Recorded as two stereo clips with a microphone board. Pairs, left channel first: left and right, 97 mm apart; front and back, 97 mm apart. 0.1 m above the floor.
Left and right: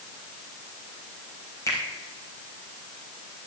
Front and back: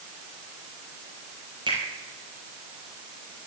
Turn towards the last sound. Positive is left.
turn(degrees=150)